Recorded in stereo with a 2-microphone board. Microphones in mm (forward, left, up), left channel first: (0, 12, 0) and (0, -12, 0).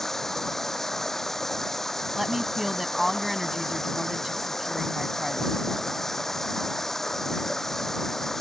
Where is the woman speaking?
15° right (ahead or behind).